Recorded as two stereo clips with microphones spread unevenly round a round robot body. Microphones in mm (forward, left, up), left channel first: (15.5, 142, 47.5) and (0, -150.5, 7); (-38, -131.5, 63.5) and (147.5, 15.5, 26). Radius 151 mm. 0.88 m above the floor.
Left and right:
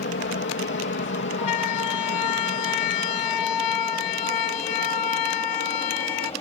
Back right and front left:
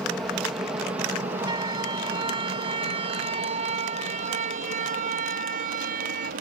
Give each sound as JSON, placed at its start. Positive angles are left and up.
{"t": 0.0, "sound": "an aircraft", "azimuth_deg": 120}
{"t": 1.4, "sound": "a siren", "azimuth_deg": 115}